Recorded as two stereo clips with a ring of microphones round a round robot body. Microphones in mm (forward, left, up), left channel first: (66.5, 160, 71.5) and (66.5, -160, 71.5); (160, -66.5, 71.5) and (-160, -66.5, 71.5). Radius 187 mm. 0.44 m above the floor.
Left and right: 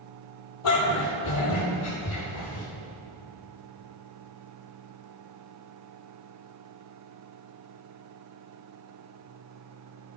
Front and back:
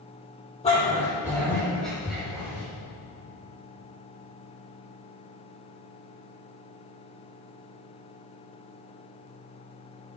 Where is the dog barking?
75° left, 4 m; by 2.6 s 95° left, 4.5 m.